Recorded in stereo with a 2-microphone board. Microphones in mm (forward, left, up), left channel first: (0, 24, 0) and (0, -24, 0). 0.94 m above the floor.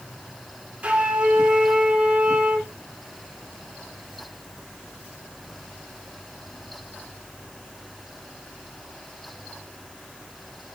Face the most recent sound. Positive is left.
turn(degrees=-30)  # may be behind; listen again after turning